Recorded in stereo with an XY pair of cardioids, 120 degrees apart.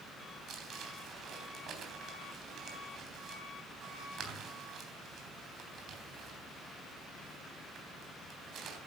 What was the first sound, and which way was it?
Crumpling, 55° right.